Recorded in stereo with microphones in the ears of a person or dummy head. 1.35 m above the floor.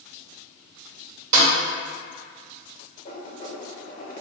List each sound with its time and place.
1.3 s a snare drum: 45° right (ahead or behind), 1.7 m
3.0 s writing: 40° left (ahead or behind), 1.0 m